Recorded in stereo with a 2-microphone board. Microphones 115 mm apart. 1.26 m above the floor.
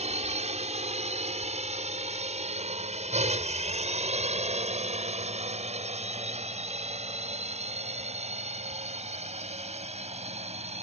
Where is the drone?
75° right (ahead or behind); by 10.8 s 70° right (ahead or behind).